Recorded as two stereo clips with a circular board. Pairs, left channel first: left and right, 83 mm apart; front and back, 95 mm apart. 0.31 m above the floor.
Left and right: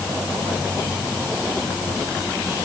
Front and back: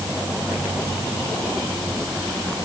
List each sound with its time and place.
Only background noise.